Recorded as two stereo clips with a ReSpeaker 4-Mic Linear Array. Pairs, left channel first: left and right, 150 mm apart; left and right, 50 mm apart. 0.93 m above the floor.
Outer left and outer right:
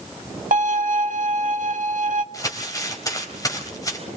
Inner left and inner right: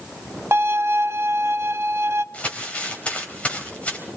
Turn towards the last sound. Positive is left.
turn(degrees=25)  # may be behind; listen again after turning